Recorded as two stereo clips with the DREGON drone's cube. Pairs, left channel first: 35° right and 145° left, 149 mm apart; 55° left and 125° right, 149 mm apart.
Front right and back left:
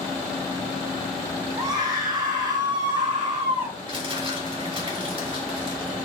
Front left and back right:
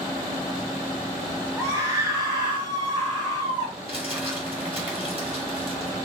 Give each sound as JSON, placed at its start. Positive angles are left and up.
{"t": 1.6, "sound": "a scream", "azimuth_deg": -175, "distance_m": 1.6}
{"t": 3.9, "sound": "crumpling", "azimuth_deg": -165, "distance_m": 3.0}